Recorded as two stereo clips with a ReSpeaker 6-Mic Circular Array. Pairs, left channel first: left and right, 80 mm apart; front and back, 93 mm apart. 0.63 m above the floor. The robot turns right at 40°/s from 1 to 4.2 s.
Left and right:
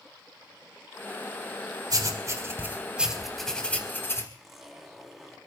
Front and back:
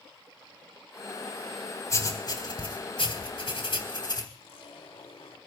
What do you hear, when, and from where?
1.9 s writing: 55° right, 3.5 m; by 4.2 s 35° left, 3.5 m
4.3 s a zipper: 5° right, 3.5 m